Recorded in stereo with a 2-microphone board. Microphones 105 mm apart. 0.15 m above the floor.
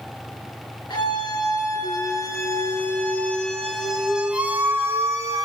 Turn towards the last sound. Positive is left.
turn(degrees=-35)  # may be behind; listen again after turning